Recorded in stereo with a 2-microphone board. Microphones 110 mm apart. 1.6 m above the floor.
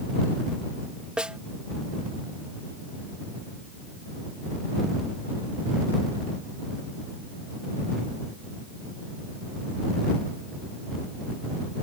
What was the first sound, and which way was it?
A snare drum, 10° right (ahead or behind).